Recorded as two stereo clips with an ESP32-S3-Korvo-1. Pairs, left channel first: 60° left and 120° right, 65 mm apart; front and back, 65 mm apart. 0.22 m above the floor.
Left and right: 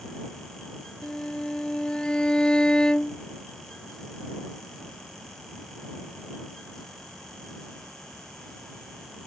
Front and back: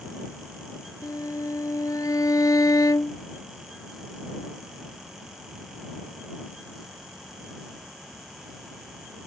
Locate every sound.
1.0 s a violin: 15° right